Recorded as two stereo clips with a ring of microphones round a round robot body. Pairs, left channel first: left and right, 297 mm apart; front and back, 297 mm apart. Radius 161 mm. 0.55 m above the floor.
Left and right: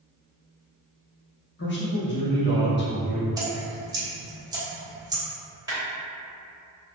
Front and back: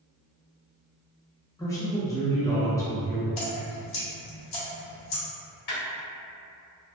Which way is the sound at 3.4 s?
10° right.